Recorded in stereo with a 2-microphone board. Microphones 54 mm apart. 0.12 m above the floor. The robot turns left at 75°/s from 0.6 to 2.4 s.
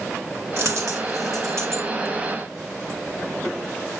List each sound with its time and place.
0.6 s a dropped coin: 45° right (ahead or behind), 2.5 m